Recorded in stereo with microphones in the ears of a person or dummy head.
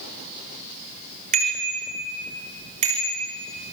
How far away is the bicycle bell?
About 5 m.